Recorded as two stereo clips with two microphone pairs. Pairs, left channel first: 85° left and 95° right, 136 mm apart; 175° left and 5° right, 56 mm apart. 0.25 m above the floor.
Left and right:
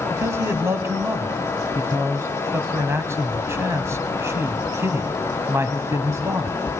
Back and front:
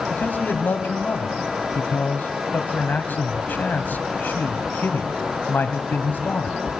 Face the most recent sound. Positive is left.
turn(degrees=-155)